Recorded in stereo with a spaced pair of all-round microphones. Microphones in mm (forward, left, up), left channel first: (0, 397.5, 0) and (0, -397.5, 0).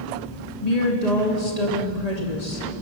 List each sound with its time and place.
0.6 s a woman speaking: 55° left (ahead or behind), 2.5 m